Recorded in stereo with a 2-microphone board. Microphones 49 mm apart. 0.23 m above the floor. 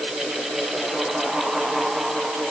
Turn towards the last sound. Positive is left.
No sound to turn to.